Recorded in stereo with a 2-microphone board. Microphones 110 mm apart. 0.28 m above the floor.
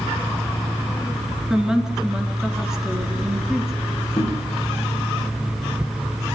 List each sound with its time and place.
1.5 s a woman speaking: 5° right (ahead or behind), 3.5 m
4.2 s knocking: 40° left (ahead or behind), 8.5 m